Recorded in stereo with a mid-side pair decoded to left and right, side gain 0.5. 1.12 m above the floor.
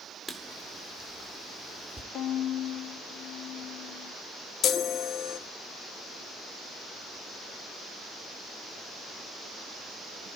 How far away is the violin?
About 0.9 m.